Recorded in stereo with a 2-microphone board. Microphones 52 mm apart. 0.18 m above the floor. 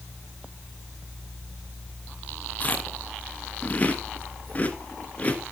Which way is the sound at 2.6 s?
30° left (ahead or behind).